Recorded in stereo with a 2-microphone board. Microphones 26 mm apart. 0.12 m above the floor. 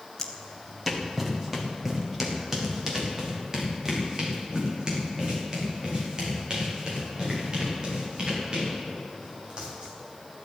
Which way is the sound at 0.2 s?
10° left (ahead or behind).